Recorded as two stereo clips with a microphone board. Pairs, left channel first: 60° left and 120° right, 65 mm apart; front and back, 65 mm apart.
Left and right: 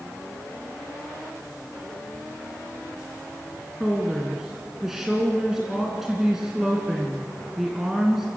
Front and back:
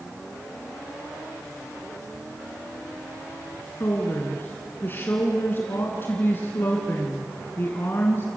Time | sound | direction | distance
3.8 | a woman speaking | 40° right | 2 m